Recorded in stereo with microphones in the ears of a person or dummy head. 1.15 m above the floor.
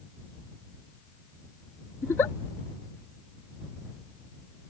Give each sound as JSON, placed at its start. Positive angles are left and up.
{"t": 2.0, "sound": "a giggle", "side_deg": 15}